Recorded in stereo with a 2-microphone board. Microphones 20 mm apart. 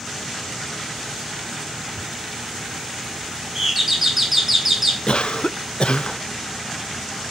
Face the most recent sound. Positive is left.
turn(degrees=60)  # may be behind; listen again after turning